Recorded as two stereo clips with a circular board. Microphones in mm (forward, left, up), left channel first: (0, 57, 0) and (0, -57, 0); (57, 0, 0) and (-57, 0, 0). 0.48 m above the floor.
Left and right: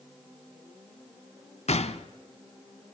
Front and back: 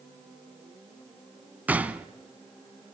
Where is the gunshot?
105° left, 0.8 m.